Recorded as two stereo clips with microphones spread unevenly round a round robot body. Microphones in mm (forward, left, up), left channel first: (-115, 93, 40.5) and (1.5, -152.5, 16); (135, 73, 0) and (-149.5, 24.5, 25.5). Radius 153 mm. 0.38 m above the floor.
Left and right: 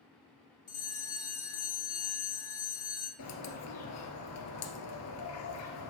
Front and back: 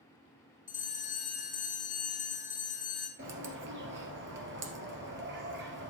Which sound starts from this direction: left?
A bell, at 0.7 s.